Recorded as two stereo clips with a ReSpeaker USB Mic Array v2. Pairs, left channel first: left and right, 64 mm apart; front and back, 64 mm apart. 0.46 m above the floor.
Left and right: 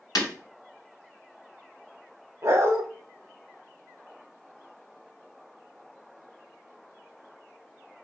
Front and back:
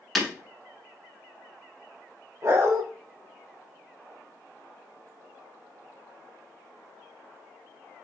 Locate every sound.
0.1 s breaking glass: 85° left, 0.9 m
2.4 s a dog barking: 135° right, 0.6 m